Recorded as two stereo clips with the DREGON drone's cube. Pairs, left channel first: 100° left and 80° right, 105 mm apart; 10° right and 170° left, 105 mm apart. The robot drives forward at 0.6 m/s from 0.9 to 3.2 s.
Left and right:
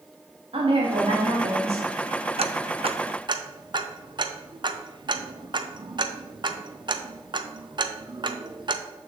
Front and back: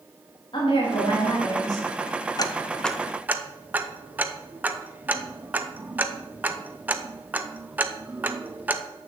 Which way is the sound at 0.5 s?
50° right.